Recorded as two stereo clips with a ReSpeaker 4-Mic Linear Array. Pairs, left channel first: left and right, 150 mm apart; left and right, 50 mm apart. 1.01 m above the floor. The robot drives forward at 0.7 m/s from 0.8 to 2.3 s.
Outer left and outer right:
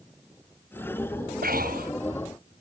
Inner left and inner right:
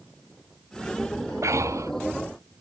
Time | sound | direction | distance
1.4 | breathing | 80° right | ?